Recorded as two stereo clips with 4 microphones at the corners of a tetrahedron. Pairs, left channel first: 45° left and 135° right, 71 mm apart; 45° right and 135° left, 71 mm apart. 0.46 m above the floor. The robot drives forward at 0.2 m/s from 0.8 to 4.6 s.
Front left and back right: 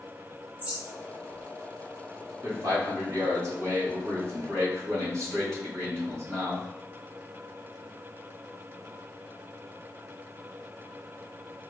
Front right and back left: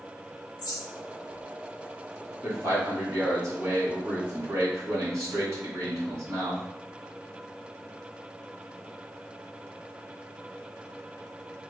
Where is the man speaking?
Straight behind, 1.8 m.